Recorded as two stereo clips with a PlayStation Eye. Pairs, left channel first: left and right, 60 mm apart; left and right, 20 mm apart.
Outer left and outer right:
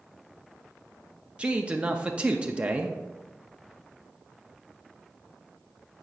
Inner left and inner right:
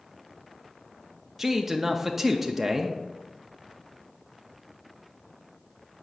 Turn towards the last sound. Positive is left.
turn(degrees=-20)  # may be behind; listen again after turning